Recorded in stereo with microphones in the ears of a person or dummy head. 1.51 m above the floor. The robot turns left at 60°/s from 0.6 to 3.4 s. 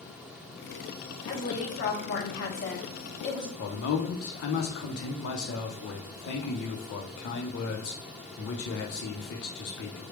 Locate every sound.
1.2 s a woman speaking: 155° left, 1.0 m; by 3.5 s 25° left, 1.0 m
3.6 s a man speaking: 70° left (ahead or behind), 0.7 m